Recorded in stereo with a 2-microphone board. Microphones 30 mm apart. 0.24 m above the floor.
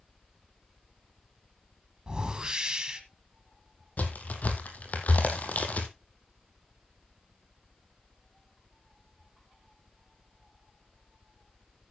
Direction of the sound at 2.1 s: 25° right (ahead or behind).